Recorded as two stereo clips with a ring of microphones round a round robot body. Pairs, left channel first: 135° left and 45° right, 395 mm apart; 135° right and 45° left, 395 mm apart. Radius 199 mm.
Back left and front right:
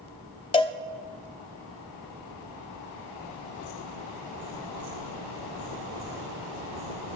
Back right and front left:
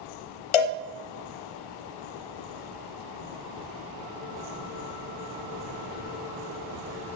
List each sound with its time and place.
0.5 s a cowbell: 150° right, 0.6 m